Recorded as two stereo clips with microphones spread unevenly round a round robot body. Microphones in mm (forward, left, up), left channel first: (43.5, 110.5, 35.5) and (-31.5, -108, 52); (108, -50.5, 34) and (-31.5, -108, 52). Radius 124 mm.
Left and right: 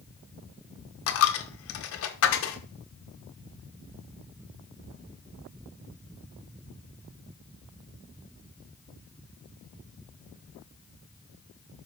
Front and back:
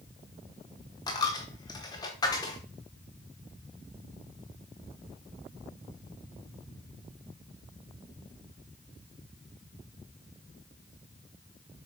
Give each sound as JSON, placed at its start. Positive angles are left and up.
{"t": 1.1, "sound": "a dropped coin", "azimuth_deg": 85, "distance_m": 1.0}